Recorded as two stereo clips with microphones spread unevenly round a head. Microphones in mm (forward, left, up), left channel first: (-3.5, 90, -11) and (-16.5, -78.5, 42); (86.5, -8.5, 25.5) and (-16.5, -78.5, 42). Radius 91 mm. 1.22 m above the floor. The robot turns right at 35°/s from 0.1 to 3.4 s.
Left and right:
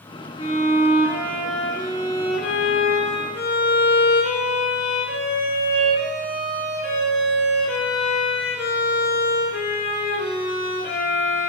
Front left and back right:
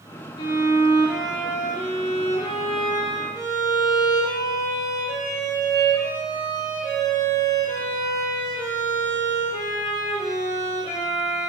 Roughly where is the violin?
Ahead.